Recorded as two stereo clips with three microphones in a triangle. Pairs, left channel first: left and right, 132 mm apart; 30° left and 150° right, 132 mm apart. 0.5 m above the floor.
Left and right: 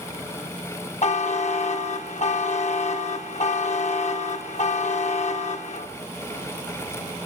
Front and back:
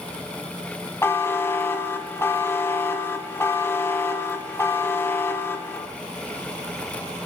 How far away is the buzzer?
About 0.6 m.